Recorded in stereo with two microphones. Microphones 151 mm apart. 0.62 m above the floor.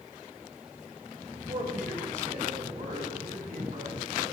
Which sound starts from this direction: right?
A man speaking, at 1.3 s.